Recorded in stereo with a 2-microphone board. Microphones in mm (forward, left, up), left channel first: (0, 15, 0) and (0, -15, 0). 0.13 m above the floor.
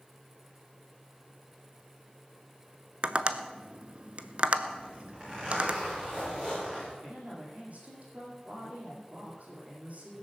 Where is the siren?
No siren in this recording.